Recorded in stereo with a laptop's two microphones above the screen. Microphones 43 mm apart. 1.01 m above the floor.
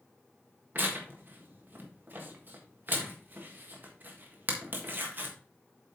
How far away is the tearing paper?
About 1.5 m.